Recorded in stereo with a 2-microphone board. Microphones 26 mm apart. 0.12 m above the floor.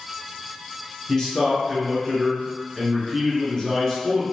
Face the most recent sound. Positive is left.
turn(degrees=25)  # may be behind; listen again after turning